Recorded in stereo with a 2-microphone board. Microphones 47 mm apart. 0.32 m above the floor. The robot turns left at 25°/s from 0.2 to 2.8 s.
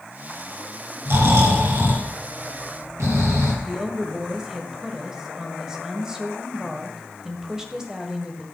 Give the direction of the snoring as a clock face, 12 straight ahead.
2 o'clock.